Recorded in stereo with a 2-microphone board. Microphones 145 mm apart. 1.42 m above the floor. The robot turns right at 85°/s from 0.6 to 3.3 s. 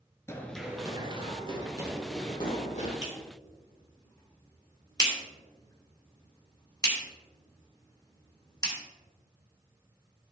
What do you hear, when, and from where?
0.3 s running footsteps: 20° left (ahead or behind), 1.4 m; by 2.9 s 65° left (ahead or behind), 4 m
3.0 s a clap: 50° left (ahead or behind), 2 m; by 8.8 s 30° left (ahead or behind), 2 m